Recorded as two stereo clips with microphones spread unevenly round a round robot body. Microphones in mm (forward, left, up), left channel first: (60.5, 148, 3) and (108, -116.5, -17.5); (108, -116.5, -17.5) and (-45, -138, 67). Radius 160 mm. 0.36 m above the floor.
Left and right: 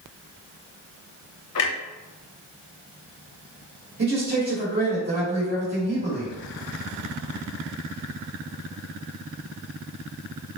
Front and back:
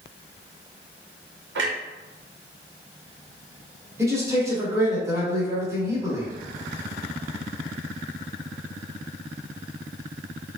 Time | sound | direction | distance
1.6 | a clunk | 140° left | 0.5 m
4.0 | a man speaking | 70° right | 1.7 m